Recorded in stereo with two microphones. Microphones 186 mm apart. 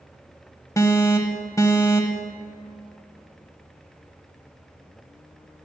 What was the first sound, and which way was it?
An alarm, 15° left (ahead or behind).